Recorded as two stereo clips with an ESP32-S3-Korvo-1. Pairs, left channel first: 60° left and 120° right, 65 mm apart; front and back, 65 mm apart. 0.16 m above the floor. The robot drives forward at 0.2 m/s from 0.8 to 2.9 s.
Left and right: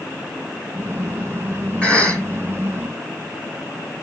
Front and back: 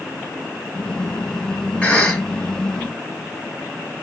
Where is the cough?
25° left, 1.3 m; by 2.2 s 30° left, 1.3 m.